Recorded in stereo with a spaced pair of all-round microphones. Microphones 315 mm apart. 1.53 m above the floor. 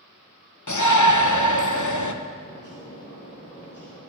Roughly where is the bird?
Left.